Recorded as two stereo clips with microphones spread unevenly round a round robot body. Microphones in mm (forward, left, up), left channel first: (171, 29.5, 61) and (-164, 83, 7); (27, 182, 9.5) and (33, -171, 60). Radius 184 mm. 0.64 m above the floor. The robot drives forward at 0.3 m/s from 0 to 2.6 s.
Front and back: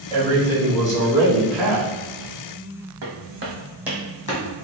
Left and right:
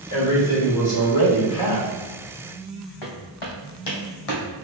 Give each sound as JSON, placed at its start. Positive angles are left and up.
{"t": 0.1, "sound": "a man speaking", "azimuth_deg": 65, "distance_m": 1.6}
{"t": 3.0, "sound": "footsteps", "azimuth_deg": 125, "distance_m": 1.5}